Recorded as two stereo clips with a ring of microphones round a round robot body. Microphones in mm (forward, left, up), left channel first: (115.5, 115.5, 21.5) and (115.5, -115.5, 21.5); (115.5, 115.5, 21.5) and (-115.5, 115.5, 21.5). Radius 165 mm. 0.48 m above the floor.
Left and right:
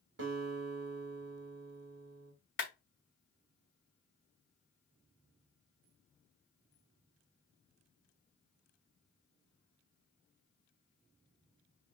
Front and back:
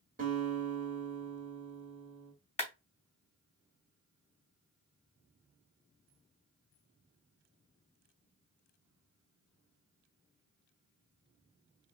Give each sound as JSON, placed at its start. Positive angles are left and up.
{"t": 0.2, "sound": "a guitar", "azimuth_deg": -125, "distance_m": 1.9}
{"t": 2.6, "sound": "a clap", "azimuth_deg": 60, "distance_m": 2.5}